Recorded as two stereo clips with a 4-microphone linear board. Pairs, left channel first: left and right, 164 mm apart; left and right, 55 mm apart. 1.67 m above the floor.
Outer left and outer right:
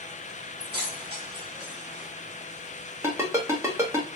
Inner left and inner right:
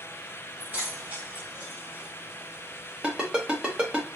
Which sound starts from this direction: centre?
A ringtone, at 3.0 s.